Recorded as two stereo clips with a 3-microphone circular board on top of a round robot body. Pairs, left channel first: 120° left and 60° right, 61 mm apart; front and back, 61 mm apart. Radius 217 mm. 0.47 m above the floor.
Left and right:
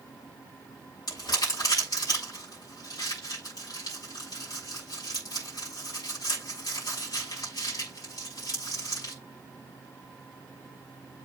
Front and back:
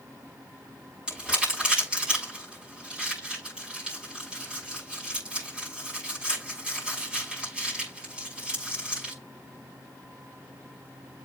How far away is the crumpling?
About 7 m.